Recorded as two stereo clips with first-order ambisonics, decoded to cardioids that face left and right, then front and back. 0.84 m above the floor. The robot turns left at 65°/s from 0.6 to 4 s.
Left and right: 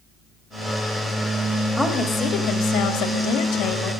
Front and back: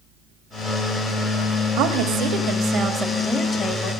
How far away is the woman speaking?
About 1.6 m.